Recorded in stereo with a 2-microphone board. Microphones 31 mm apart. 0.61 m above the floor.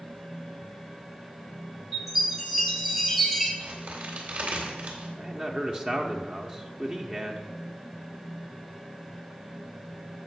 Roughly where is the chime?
Centre.